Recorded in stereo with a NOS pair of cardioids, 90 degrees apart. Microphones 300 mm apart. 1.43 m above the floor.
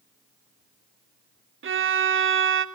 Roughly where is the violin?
Ahead right.